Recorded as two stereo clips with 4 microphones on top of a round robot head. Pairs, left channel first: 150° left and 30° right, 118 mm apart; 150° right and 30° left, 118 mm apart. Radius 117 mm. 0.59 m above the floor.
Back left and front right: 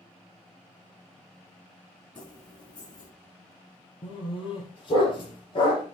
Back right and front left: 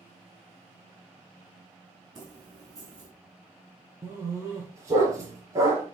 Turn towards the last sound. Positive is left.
turn(degrees=100)